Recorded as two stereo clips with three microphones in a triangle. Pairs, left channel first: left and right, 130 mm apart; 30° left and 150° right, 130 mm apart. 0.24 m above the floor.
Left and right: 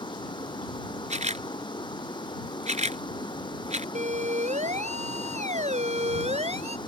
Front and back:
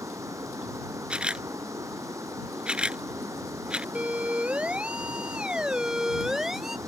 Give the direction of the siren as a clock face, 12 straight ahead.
2 o'clock.